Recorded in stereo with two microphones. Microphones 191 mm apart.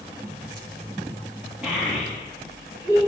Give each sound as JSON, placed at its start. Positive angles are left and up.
{"t": 1.6, "sound": "a child speaking", "side_deg": -5, "distance_m": 1.0}